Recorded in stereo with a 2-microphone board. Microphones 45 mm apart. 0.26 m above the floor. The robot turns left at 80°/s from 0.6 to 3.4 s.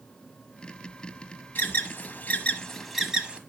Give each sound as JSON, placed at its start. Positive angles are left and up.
{"t": 1.6, "sound": "an alarm", "side_deg": 45, "distance_m": 1.2}